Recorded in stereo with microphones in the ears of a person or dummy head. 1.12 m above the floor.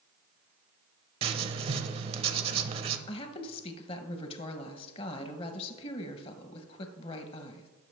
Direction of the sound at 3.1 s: 30° left (ahead or behind).